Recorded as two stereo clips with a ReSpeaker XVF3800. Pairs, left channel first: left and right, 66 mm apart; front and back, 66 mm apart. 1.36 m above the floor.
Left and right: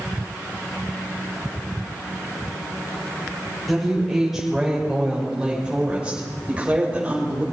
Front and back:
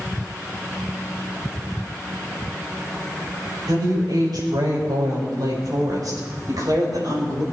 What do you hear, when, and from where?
3.7 s a woman speaking: straight behind, 6 m; by 7.4 s 160° right, 7 m